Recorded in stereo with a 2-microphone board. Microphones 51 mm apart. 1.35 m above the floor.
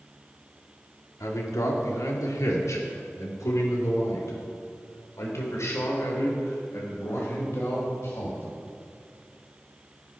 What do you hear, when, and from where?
1.2 s a man speaking: 85° left, 3 m; by 8.5 s 60° left (ahead or behind), 6 m